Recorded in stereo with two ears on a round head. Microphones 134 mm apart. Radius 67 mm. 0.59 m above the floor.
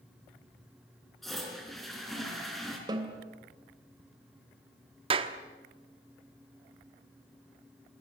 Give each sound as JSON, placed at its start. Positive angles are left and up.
{"t": 1.2, "sound": "a toilet flushing", "side_deg": 0, "distance_m": 5.0}
{"t": 2.9, "sound": "a snare drum", "side_deg": -30, "distance_m": 3.0}
{"t": 5.1, "sound": "a clap", "side_deg": -35, "distance_m": 1.2}